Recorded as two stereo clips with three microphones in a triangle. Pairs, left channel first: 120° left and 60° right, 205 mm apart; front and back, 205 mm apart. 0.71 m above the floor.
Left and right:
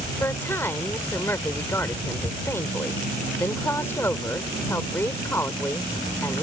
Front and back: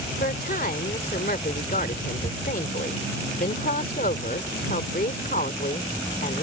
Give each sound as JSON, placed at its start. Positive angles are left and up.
{"t": 0.2, "sound": "a woman speaking", "azimuth_deg": 45}